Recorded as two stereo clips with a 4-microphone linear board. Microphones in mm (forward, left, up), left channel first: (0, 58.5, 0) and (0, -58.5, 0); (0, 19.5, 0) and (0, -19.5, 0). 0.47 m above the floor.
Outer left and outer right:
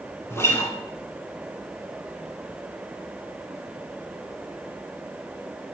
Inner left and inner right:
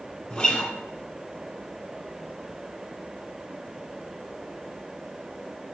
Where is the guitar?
25° left (ahead or behind), 1.5 m.